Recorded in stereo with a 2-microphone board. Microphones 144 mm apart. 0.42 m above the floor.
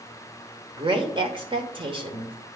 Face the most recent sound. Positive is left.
turn(degrees=-35)  # may be behind; listen again after turning